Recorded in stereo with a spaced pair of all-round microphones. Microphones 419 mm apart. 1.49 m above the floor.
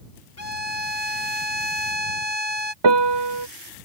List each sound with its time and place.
0.4 s a violin: 35° left (ahead or behind)
2.8 s a piano: 75° right (ahead or behind)